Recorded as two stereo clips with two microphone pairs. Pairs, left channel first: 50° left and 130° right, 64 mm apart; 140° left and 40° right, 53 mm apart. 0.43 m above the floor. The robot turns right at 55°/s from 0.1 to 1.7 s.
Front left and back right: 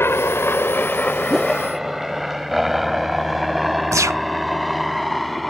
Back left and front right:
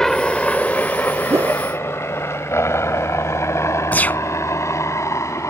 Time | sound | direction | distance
0.0 | a helicopter | 65° left | ?
1.3 | a whoosh | 40° right | ?
3.9 | a gunshot | 160° right | ?